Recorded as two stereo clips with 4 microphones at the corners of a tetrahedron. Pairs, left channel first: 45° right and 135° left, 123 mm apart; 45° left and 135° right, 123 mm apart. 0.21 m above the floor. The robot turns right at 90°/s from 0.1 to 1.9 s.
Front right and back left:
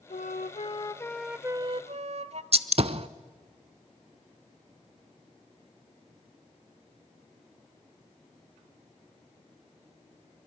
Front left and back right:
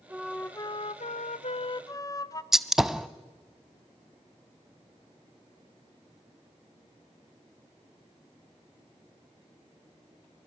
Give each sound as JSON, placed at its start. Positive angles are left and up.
{"t": 0.1, "sound": "a flute", "azimuth_deg": -60, "distance_m": 0.6}
{"t": 2.5, "sound": "a gunshot", "azimuth_deg": 140, "distance_m": 0.5}